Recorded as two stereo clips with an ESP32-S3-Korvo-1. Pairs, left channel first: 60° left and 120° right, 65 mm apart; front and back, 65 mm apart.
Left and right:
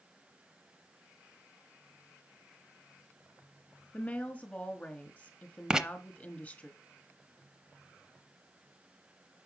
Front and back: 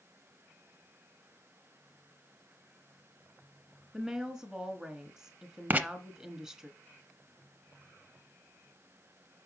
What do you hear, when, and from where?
3.9 s a woman speaking: 105° left, 1.4 m
5.7 s writing: 175° left, 0.6 m